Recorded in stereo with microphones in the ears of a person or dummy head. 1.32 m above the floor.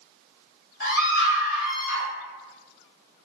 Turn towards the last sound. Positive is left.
turn(degrees=70)  # may be behind; listen again after turning